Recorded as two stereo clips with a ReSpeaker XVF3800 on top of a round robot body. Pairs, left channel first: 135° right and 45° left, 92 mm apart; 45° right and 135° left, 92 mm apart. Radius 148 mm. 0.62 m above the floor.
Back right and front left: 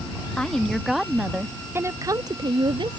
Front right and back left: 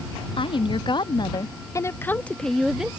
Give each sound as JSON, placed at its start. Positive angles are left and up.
{"t": 0.4, "sound": "a woman speaking", "azimuth_deg": -55}